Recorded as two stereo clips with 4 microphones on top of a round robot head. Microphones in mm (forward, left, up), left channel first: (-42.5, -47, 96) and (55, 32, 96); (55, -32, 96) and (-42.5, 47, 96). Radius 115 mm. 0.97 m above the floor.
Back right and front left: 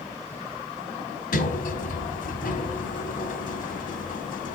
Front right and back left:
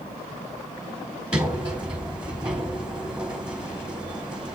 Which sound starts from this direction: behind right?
A sliding door, at 1.3 s.